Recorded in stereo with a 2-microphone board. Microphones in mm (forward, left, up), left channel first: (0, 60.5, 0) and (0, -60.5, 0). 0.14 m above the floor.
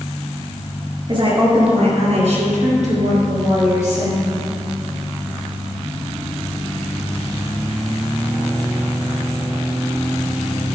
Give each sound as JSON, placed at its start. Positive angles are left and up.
{"t": 1.1, "sound": "a woman speaking", "side_deg": -40, "distance_m": 2.5}